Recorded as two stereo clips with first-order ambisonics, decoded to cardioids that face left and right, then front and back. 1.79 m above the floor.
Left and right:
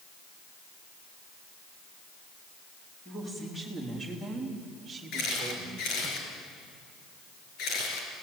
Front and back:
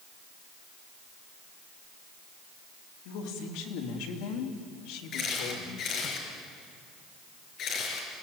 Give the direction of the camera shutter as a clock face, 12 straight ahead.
10 o'clock.